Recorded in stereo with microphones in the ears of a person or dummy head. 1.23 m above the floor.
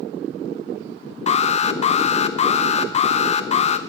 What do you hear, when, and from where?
1.3 s an alarm: 30° left (ahead or behind), 0.6 m